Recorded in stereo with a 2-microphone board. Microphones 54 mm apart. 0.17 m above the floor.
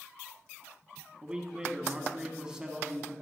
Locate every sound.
1.2 s a man speaking: 15° right (ahead or behind), 1.3 m